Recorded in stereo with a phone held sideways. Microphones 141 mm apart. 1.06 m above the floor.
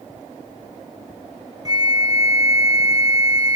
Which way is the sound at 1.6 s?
25° right (ahead or behind).